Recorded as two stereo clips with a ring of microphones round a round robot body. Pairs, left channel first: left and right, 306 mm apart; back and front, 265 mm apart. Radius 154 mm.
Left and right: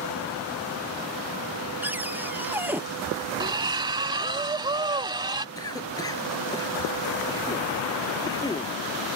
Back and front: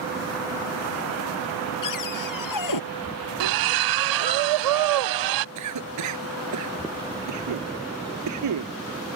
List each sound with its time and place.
1.8 s a cupboard door: 175° right
3.4 s a splash: 15° right
5.5 s a cough: 10° left